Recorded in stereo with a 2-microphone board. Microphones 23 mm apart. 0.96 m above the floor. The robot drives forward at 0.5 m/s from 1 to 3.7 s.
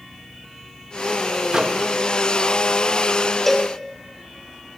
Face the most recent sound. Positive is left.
turn(degrees=10)  # may be behind; listen again after turning